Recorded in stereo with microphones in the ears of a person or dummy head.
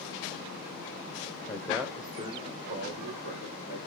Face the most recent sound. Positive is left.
turn(degrees=-60)  # may be behind; listen again after turning